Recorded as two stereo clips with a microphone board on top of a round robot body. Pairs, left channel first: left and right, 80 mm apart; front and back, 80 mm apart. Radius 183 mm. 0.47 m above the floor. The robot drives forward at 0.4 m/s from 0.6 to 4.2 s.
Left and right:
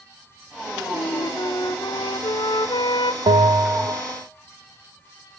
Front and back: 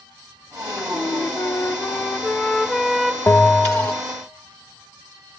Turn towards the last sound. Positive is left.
turn(degrees=-80)